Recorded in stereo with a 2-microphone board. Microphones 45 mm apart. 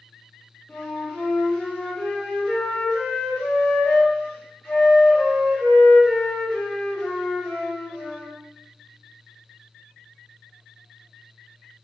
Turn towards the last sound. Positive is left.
turn(degrees=20)  # may be behind; listen again after turning